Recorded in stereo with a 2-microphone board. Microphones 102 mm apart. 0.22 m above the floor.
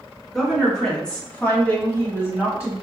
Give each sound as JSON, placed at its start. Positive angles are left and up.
{"t": 0.3, "sound": "a woman speaking", "side_deg": 5, "distance_m": 2.0}